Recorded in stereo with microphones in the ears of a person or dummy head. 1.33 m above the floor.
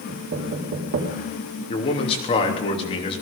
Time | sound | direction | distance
0.1 | knocking | 85° right | 3 m
1.7 | a man speaking | 35° left (ahead or behind) | 3 m